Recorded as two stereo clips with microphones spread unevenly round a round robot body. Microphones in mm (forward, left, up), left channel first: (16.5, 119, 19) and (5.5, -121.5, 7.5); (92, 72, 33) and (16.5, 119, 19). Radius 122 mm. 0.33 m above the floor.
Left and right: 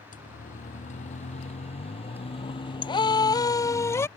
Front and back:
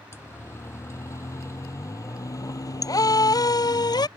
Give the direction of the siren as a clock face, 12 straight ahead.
11 o'clock.